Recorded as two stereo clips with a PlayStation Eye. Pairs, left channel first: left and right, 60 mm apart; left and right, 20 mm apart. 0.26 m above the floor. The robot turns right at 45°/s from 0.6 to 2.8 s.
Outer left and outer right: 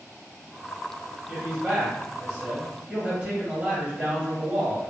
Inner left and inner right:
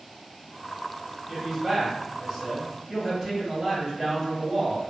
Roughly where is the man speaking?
Right.